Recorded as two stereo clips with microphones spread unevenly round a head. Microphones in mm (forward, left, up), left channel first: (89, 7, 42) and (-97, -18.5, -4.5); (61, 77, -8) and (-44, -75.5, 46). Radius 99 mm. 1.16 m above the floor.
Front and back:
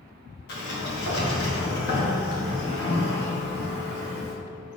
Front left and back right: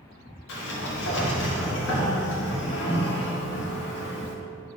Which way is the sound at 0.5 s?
45° left.